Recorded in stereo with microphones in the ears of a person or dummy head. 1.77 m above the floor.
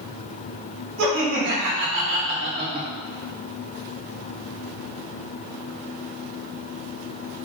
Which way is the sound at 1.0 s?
65° right (ahead or behind).